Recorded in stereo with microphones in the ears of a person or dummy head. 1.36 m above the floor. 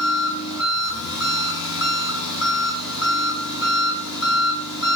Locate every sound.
0.0 s an engine running: 80° left, 6.5 m